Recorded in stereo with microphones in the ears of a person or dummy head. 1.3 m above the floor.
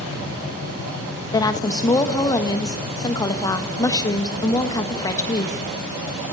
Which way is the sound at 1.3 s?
20° left (ahead or behind).